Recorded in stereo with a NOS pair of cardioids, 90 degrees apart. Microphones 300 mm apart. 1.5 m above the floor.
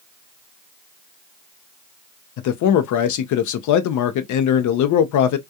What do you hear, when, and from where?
2.4 s a man speaking: 65° left, 0.6 m